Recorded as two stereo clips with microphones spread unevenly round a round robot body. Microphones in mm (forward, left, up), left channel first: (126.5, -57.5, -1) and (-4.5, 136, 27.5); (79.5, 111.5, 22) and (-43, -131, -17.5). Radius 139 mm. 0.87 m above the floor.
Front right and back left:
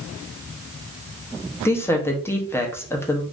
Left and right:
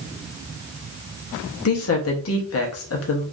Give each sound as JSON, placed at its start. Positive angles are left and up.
{"t": 1.6, "sound": "a woman speaking", "azimuth_deg": 20, "distance_m": 0.9}